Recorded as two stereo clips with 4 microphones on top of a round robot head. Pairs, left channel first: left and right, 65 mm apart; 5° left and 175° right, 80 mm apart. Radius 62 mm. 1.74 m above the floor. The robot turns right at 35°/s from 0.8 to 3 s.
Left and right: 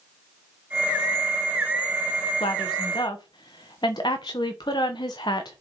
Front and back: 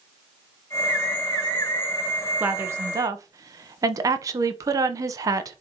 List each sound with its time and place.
2.4 s a woman speaking: 120° left, 1.1 m; by 5.6 s 140° left, 1.1 m